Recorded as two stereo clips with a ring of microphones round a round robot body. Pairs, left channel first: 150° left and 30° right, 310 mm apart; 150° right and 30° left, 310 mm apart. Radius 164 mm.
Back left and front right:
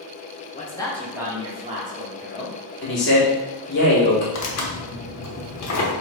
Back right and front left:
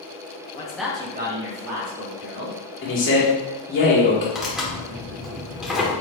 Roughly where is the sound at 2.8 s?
Behind.